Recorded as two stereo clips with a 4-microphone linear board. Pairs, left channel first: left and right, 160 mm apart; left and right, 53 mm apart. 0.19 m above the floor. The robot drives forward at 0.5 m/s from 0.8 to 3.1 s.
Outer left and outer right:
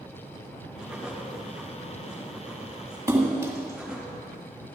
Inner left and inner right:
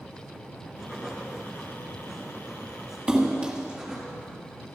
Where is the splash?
20° right (ahead or behind), 1.7 m.